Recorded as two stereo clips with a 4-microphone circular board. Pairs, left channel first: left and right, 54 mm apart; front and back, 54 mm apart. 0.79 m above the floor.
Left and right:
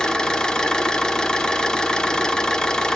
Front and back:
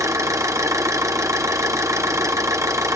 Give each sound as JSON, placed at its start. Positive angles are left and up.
{"t": 0.0, "sound": "an engine running", "azimuth_deg": 165, "distance_m": 0.8}